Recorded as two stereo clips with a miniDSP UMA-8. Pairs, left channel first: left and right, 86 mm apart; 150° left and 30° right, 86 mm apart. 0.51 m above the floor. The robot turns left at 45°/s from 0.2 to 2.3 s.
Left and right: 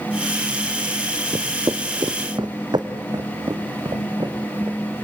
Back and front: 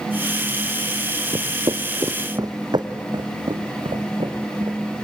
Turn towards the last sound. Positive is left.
turn(degrees=-40)